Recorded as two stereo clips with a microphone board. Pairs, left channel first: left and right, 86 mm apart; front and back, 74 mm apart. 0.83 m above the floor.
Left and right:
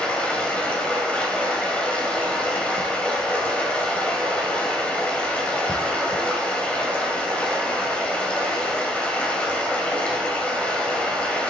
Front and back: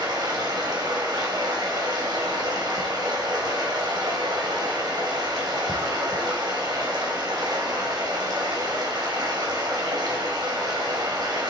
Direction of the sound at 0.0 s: 165° left.